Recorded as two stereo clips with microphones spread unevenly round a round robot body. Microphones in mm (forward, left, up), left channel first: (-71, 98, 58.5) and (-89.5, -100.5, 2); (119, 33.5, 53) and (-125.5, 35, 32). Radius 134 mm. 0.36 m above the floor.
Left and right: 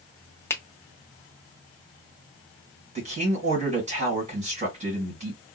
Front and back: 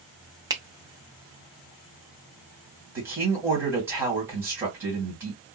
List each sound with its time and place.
0.5 s a finger snap: 170° right, 0.6 m
3.0 s a man speaking: 105° right, 1.7 m